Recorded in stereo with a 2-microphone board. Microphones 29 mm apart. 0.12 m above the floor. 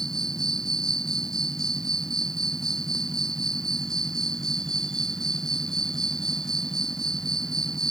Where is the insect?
15° left (ahead or behind).